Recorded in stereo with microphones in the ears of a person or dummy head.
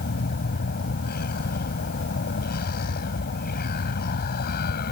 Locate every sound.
0.0 s a vehicle: 50° left (ahead or behind)